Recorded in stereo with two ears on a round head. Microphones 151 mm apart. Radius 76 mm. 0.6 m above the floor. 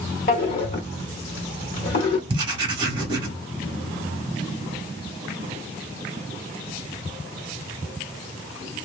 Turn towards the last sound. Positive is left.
turn(degrees=-30)  # may be behind; listen again after turning